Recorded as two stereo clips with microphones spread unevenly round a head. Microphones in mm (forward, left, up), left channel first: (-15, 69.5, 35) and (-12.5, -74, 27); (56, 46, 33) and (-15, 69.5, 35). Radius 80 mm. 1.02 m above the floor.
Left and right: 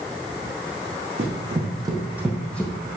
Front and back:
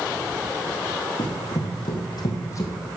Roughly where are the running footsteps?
Ahead right.